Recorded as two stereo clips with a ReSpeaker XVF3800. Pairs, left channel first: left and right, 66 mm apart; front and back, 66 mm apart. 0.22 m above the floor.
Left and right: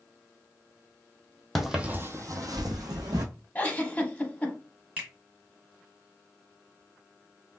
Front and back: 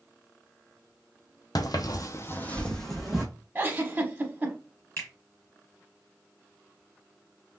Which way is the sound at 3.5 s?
140° left.